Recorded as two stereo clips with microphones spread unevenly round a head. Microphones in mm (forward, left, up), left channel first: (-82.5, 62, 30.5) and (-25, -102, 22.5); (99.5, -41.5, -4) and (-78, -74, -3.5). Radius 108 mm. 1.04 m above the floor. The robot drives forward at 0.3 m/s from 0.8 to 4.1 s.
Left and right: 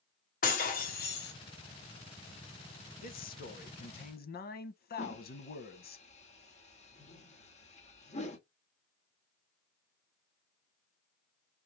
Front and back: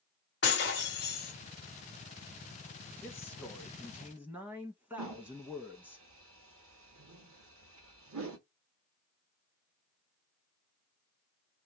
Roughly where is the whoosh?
Behind.